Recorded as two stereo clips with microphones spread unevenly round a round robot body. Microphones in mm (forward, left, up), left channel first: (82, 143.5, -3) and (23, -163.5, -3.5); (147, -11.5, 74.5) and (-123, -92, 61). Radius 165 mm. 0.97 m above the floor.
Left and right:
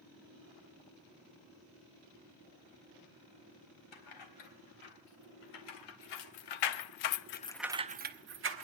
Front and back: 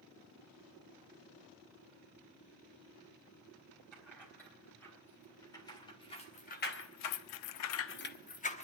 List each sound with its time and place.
3.9 s keys jangling: 100° left, 4 m; by 8.6 s 50° right, 1.6 m